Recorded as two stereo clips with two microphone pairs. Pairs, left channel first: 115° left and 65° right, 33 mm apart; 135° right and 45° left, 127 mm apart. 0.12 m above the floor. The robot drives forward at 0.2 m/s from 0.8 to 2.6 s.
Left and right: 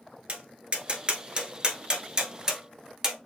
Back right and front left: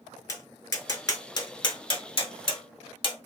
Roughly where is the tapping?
Right.